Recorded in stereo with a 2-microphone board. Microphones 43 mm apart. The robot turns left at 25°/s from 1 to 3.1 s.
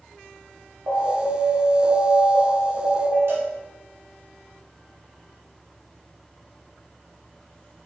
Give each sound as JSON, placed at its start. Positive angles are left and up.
{"t": 0.9, "sound": "an alarm", "azimuth_deg": -80, "distance_m": 1.2}
{"t": 3.3, "sound": "a cowbell", "side_deg": -65, "distance_m": 1.0}